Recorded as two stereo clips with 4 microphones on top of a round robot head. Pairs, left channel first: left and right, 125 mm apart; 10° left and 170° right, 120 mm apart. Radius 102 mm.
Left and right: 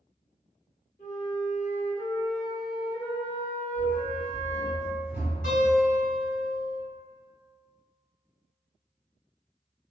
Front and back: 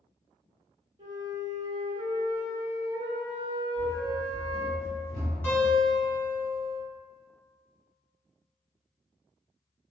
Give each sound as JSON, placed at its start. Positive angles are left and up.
{"t": 1.0, "sound": "a flute", "azimuth_deg": 135, "distance_m": 0.9}
{"t": 3.8, "sound": "running footsteps", "azimuth_deg": 135, "distance_m": 1.7}
{"t": 5.4, "sound": "a guitar", "azimuth_deg": 80, "distance_m": 1.7}